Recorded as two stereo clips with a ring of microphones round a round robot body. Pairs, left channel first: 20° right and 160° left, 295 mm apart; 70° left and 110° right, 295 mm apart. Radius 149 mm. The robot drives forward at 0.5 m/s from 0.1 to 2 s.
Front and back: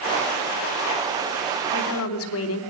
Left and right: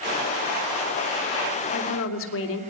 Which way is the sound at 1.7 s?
20° left.